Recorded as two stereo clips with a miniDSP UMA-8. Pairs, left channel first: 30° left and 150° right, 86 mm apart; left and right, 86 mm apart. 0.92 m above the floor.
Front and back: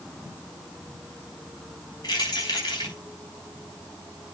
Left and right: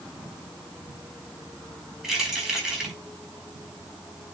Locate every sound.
2.0 s keys jangling: 5° right, 4.5 m